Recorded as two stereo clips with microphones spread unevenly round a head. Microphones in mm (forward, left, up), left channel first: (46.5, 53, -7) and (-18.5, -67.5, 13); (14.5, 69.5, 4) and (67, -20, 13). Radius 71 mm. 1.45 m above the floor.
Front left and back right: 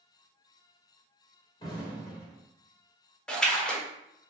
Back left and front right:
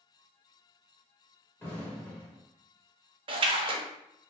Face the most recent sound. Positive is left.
turn(degrees=-25)